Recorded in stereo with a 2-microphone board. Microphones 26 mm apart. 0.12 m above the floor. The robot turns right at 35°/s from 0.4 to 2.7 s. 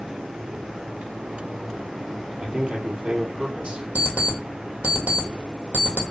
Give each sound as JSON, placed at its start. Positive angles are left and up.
{"t": 2.4, "sound": "a man speaking", "side_deg": -45, "distance_m": 2.5}
{"t": 4.0, "sound": "an alarm clock", "side_deg": -55, "distance_m": 1.8}